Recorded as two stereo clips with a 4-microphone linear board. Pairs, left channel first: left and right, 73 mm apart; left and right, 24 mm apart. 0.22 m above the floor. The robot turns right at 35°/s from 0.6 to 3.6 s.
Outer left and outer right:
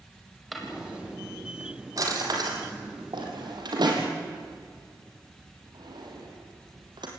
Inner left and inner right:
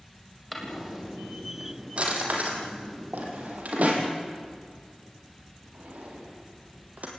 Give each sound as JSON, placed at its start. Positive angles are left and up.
{"t": 0.5, "sound": "a drawer", "side_deg": 0, "distance_m": 4.5}